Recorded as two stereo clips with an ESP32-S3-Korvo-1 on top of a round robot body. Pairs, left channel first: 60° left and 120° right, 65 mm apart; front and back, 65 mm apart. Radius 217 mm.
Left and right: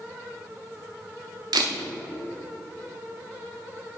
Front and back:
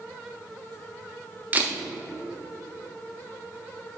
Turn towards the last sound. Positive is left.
turn(degrees=-115)